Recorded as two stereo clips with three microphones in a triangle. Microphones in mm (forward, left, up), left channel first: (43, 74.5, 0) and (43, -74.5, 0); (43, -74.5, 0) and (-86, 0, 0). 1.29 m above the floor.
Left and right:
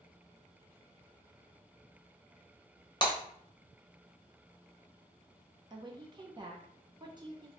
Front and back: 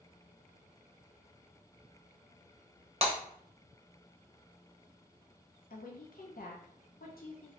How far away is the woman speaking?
About 0.6 m.